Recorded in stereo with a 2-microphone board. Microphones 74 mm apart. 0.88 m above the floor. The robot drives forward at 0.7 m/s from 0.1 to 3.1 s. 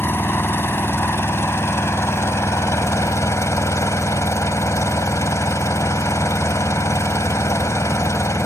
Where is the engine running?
35° left (ahead or behind); by 8.5 s 45° left (ahead or behind).